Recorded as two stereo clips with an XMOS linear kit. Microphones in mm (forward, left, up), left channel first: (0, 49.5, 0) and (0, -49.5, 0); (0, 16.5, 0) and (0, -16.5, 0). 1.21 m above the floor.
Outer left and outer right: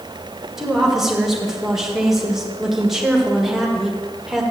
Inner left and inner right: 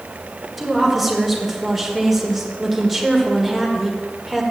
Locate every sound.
0.6 s a woman speaking: 5° right (ahead or behind), 1.5 m